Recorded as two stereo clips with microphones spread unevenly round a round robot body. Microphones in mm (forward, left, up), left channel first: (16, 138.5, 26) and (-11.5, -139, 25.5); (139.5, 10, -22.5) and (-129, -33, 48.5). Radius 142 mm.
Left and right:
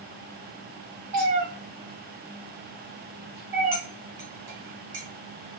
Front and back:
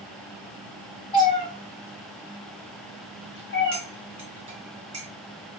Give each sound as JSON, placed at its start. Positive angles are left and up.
{"t": 1.1, "sound": "a cat meowing", "azimuth_deg": -65, "distance_m": 4.0}
{"t": 3.7, "sound": "cutlery clinking", "azimuth_deg": -100, "distance_m": 3.0}